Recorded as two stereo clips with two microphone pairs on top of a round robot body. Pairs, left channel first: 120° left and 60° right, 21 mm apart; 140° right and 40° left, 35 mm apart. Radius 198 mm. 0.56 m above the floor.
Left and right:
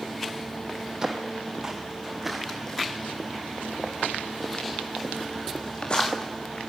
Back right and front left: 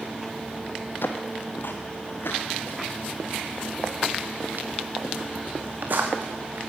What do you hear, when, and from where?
1.0 s footsteps: 115° right, 1.4 m; by 6.6 s 75° left, 3 m